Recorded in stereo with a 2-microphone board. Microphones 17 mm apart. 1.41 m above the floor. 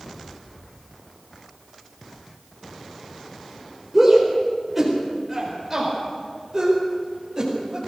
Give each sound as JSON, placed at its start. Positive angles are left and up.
{"t": 3.9, "sound": "a shout", "side_deg": 0, "distance_m": 4.5}